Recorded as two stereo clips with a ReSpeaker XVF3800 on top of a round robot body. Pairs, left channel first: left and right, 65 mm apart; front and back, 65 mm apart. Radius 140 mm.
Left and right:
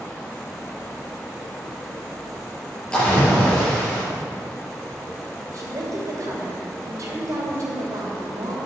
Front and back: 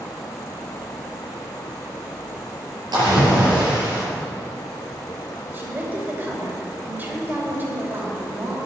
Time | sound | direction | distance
2.9 | a splash | 165° left | 4.5 m
5.5 | a woman speaking | 120° right | 3 m